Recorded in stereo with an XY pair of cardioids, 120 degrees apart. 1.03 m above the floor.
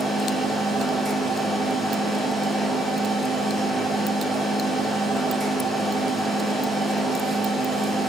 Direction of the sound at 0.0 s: 5° right.